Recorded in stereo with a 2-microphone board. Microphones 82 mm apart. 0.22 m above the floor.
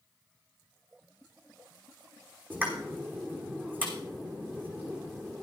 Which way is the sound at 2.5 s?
20° right (ahead or behind).